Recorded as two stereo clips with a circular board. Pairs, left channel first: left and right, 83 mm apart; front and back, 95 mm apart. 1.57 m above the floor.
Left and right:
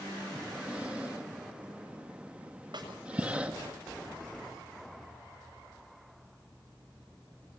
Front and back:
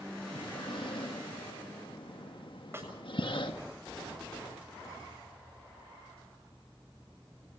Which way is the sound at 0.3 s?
20° right.